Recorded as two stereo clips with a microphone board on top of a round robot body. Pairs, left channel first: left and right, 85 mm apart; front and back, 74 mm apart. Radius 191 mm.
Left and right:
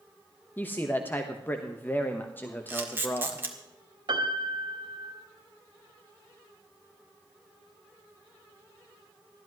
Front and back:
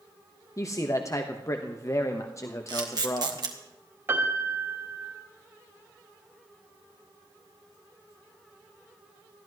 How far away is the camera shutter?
About 1.8 m.